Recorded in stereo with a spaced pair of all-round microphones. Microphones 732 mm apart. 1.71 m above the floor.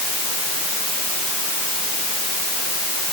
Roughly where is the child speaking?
I don't hear a child speaking.